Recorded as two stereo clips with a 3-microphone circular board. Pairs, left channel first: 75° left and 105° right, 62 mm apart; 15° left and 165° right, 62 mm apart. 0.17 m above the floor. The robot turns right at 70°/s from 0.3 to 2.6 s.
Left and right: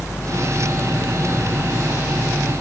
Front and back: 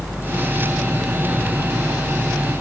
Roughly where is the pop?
No pop in this recording.